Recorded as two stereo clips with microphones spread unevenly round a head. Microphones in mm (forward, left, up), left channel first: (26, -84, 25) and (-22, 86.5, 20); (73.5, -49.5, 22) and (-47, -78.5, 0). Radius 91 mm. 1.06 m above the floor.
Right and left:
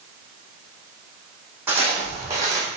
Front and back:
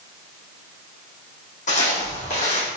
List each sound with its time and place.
1.7 s footsteps: 25° left, 3.5 m; by 2.7 s 35° left, 3 m